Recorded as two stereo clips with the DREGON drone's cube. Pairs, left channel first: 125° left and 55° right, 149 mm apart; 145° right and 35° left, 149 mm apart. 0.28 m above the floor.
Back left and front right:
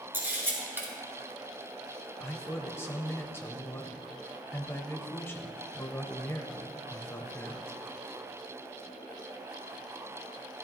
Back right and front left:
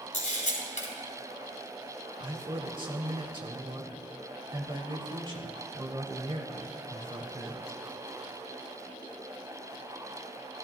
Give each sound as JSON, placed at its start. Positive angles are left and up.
{"t": 0.1, "sound": "a camera shutter", "azimuth_deg": -130, "distance_m": 3.0}
{"t": 2.2, "sound": "a man speaking", "azimuth_deg": 65, "distance_m": 1.1}